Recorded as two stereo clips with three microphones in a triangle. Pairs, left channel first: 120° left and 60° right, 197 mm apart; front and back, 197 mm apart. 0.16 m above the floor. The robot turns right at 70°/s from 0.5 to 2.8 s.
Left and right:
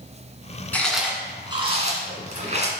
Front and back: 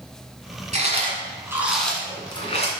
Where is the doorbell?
No doorbell in this recording.